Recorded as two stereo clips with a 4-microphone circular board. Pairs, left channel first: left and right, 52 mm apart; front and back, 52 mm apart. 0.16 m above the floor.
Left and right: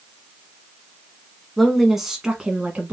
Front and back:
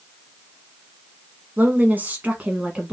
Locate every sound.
1.6 s a woman speaking: 175° left, 1.3 m; by 2.9 s 120° right, 1.2 m